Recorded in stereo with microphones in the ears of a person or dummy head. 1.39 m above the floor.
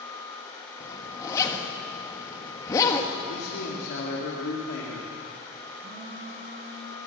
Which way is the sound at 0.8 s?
20° left (ahead or behind).